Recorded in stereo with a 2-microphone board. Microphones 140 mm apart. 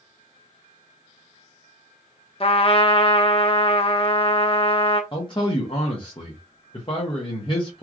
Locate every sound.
2.4 s a trumpet: 40° left (ahead or behind), 0.6 m
5.1 s a man speaking: 35° left (ahead or behind), 0.8 m